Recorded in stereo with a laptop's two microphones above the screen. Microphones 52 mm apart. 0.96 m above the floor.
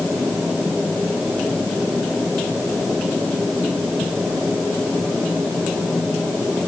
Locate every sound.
Only background noise.